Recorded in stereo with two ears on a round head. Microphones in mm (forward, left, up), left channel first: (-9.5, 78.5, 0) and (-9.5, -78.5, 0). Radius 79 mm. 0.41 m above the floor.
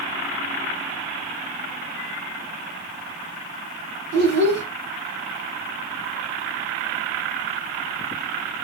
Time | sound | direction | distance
4.1 | a child speaking | 65° right (ahead or behind) | 1.6 m